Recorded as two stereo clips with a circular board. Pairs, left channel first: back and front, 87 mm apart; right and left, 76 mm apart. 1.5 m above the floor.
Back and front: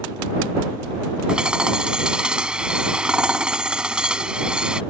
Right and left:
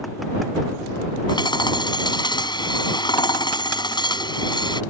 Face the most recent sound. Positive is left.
turn(degrees=-80)